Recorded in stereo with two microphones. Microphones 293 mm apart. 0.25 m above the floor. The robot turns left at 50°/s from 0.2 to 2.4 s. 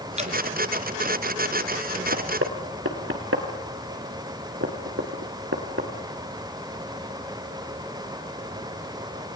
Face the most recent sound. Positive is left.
turn(degrees=-50)  # may be behind; listen again after turning